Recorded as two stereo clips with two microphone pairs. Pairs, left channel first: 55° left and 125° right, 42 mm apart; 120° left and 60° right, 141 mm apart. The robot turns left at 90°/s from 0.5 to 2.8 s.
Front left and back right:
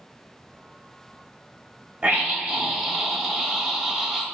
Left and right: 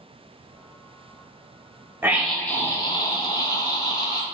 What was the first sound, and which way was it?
A scream, 125° right.